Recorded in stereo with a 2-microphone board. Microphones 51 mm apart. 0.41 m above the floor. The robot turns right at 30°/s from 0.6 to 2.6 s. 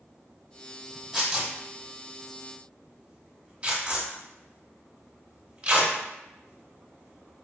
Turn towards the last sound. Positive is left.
turn(degrees=-25)  # may be behind; listen again after turning